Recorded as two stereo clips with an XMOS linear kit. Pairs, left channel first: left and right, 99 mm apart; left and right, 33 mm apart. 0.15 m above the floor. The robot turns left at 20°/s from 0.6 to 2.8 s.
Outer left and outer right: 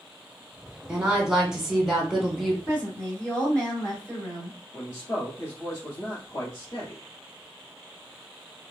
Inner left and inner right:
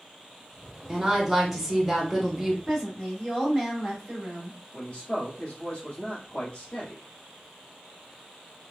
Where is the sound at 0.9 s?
10° right (ahead or behind), 1.0 m; by 2.6 s centre (ahead or behind), 1.0 m.